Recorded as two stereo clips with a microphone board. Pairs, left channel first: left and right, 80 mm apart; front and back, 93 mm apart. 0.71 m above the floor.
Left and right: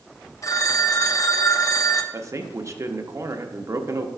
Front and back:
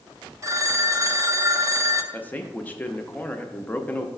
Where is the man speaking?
65° right, 0.7 m.